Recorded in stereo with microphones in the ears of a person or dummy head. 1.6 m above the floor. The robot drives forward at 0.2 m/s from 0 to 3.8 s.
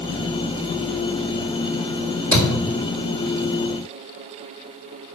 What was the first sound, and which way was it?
A thud, 15° left (ahead or behind).